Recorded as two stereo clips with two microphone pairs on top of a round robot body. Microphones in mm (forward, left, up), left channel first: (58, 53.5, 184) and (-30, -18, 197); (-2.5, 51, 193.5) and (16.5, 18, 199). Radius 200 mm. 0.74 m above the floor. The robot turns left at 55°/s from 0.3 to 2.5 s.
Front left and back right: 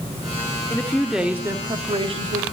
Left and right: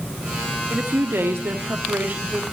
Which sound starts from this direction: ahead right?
A woman speaking, at 0.7 s.